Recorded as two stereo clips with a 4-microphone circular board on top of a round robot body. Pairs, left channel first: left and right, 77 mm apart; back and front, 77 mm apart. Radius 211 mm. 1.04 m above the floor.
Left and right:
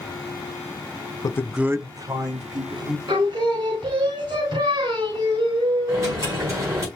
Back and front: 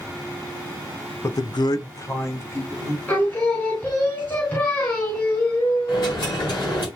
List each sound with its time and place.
1.2 s a man speaking: 125° left, 0.6 m; by 3.0 s 120° right, 2.5 m
3.1 s singing: 115° right, 3 m
5.9 s a dropped coin: 145° right, 3.5 m